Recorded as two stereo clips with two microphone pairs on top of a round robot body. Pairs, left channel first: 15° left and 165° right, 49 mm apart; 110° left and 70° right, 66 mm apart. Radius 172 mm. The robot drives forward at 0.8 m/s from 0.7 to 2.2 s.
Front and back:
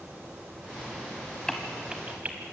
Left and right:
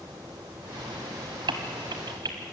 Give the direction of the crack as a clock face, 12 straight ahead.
2 o'clock.